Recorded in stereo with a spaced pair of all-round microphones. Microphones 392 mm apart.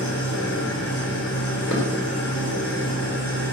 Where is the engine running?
35° left (ahead or behind), 7 m.